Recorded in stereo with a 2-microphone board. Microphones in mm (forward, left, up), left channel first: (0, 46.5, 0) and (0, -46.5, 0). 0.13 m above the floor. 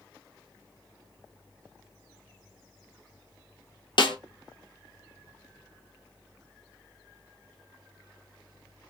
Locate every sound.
4.0 s a snare drum: 60° left (ahead or behind), 0.6 m